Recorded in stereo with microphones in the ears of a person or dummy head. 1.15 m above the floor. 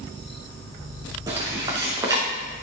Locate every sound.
1.3 s footsteps: 20° right (ahead or behind), 3 m